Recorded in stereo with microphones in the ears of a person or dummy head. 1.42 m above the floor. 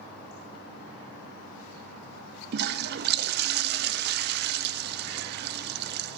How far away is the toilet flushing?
About 0.6 m.